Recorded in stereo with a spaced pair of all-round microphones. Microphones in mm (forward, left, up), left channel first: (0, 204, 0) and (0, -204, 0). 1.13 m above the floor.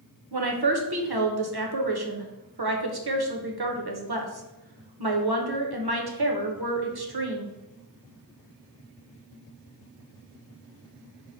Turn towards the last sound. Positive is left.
turn(degrees=-70)  # may be behind; listen again after turning